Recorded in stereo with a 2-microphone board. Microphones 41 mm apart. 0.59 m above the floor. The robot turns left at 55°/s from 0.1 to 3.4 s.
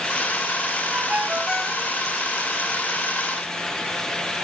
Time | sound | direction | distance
0.9 | a ringtone | 140° right | 2 m